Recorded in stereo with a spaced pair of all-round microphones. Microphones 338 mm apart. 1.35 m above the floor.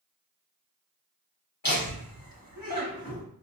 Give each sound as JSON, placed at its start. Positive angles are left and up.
{"t": 1.6, "sound": "laughter", "side_deg": 80, "distance_m": 1.4}